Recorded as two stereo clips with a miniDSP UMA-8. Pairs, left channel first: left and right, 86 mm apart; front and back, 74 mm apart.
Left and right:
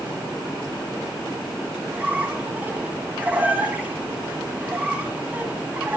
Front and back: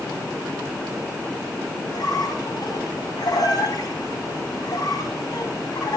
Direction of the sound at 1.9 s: 20° right.